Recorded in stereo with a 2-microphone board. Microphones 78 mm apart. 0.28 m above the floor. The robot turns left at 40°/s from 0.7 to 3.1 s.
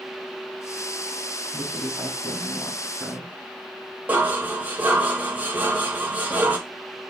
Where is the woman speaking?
30° left, 2 m; by 3.3 s 30° right, 2 m.